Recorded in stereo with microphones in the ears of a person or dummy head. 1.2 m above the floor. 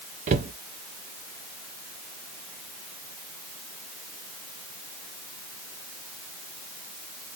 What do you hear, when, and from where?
0.3 s a cupboard door: 35° right (ahead or behind), 0.5 m